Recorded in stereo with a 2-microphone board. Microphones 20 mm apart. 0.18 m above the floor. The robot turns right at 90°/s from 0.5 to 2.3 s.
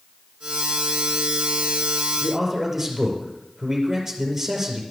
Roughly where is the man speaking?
Centre.